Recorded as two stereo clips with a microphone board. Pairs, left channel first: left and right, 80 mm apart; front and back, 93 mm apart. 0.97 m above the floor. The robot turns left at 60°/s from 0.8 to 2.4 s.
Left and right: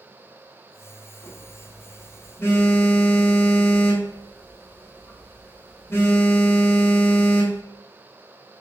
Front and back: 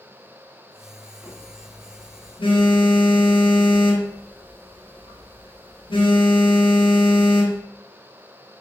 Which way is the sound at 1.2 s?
100° left.